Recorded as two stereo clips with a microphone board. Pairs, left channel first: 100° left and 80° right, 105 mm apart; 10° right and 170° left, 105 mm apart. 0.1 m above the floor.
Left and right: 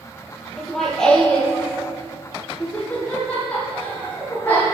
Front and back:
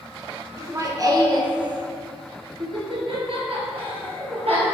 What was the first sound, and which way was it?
Laughter, 175° right.